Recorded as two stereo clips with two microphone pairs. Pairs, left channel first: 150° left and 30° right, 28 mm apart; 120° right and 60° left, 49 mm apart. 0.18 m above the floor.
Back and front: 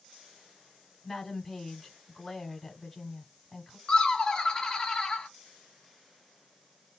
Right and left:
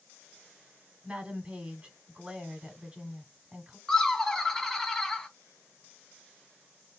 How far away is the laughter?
About 1.2 m.